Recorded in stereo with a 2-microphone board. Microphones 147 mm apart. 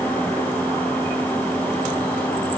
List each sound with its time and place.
Only background noise.